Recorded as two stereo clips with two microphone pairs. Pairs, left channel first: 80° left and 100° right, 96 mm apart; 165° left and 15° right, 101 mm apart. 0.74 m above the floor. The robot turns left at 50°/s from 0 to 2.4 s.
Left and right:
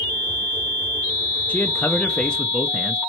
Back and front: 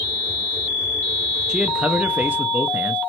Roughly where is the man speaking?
Ahead left.